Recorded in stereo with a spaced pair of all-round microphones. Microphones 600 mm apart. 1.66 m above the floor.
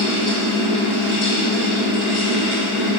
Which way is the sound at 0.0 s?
45° left (ahead or behind).